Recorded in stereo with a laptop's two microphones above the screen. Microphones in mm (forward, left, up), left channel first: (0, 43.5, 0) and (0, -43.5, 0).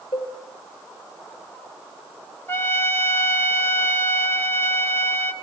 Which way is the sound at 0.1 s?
75° left (ahead or behind).